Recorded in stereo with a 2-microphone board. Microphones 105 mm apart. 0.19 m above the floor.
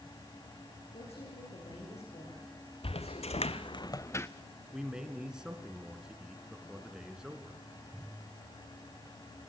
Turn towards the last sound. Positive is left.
turn(degrees=-5)  # may be behind; listen again after turning